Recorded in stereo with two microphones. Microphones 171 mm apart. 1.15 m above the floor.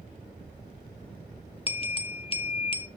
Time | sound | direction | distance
1.7 | a bell | 35° left (ahead or behind) | 0.7 m